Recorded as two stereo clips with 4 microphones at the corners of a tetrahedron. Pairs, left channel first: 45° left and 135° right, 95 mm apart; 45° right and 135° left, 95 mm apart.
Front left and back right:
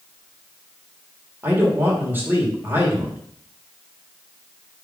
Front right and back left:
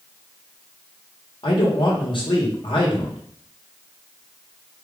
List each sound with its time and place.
1.4 s a man speaking: 70° right, 1.4 m